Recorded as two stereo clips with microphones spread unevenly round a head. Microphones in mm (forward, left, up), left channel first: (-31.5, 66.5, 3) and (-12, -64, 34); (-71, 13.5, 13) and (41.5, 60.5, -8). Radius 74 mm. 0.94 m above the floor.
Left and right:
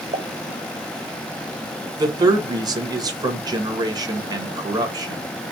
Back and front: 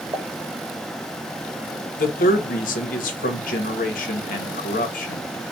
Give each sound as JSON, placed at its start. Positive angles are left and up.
{"t": 0.1, "sound": "a pop", "azimuth_deg": -30, "distance_m": 0.6}
{"t": 2.0, "sound": "a man speaking", "azimuth_deg": -150, "distance_m": 1.3}